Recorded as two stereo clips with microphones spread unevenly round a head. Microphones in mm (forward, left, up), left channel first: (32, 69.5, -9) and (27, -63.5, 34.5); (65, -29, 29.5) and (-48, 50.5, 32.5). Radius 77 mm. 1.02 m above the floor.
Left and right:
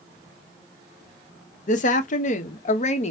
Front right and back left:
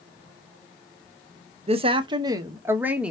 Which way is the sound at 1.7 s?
100° left.